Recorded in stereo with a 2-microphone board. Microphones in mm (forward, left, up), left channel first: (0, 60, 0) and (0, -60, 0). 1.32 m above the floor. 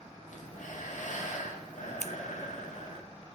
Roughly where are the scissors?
Right.